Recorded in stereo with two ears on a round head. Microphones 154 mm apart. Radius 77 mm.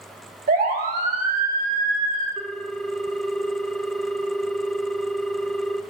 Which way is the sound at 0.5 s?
50° right (ahead or behind).